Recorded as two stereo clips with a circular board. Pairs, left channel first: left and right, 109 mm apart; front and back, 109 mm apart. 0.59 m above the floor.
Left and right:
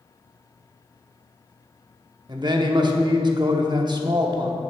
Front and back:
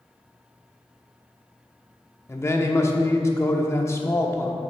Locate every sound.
2.3 s a man speaking: 60° right, 0.9 m